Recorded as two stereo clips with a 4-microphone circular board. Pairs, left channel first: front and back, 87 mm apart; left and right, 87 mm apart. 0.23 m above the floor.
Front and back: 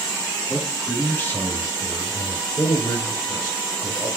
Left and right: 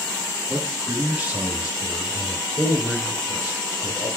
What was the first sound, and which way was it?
A man speaking, 75° right.